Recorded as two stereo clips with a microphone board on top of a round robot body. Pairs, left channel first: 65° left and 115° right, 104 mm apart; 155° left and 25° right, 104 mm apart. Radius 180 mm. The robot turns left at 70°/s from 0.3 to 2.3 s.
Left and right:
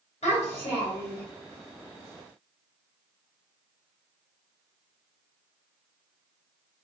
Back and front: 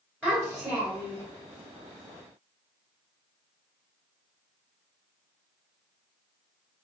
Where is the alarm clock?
No alarm clock in this recording.